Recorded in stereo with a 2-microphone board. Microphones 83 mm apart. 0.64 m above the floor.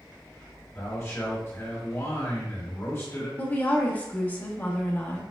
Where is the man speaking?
30° left (ahead or behind), 1.5 m.